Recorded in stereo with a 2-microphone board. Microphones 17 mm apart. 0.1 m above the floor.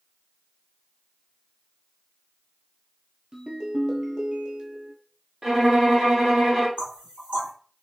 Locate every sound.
3.3 s a ringtone: 45° right (ahead or behind), 0.9 m
5.4 s a violin: 20° right (ahead or behind), 1.4 m
6.8 s knocking: 55° right (ahead or behind), 2.5 m